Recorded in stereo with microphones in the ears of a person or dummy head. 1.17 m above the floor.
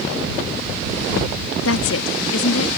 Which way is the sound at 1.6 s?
85° left.